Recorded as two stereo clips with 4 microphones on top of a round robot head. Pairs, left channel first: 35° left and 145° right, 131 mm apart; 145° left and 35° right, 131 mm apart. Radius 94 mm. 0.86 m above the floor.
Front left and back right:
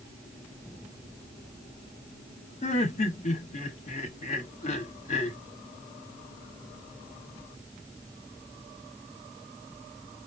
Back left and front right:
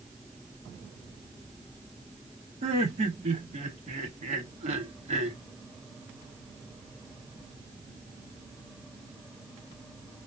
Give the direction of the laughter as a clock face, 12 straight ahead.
12 o'clock.